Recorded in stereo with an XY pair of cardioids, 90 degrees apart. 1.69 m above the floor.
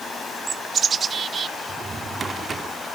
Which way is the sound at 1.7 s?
45° right.